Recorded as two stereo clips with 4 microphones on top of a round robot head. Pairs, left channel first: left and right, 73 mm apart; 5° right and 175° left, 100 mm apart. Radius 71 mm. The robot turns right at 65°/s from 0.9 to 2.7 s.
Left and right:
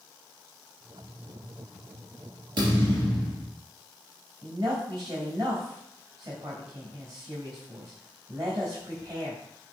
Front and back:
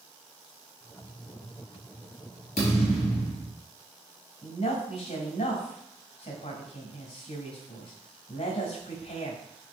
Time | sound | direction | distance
2.6 | a thud | 50° right | 4 m
4.4 | a woman speaking | 40° right | 3.5 m